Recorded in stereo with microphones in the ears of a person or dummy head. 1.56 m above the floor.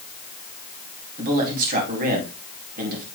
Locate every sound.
1.2 s a man speaking: 50° right (ahead or behind), 3.5 m